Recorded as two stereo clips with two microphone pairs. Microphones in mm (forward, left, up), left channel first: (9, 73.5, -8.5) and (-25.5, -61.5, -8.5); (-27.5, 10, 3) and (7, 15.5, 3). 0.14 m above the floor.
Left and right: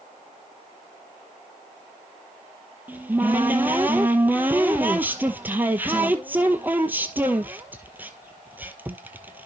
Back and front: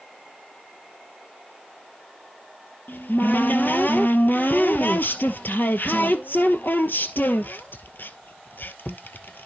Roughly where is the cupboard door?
Behind.